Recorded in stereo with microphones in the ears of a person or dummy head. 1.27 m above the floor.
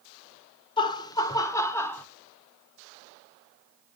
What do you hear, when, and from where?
0.8 s laughter: 30° left (ahead or behind), 0.9 m; by 2.0 s 15° left (ahead or behind), 1.4 m